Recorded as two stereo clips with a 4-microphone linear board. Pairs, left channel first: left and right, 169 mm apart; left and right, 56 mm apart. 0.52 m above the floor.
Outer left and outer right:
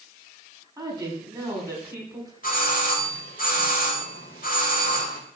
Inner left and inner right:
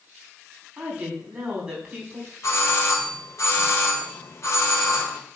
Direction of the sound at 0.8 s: 25° right (ahead or behind).